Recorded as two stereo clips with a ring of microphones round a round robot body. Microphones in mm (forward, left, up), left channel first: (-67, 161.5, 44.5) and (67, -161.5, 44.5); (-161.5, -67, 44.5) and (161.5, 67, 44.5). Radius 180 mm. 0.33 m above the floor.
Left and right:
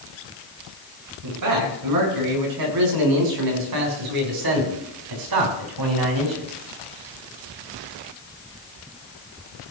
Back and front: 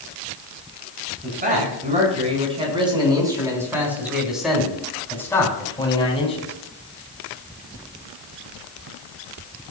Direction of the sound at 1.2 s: 40° right.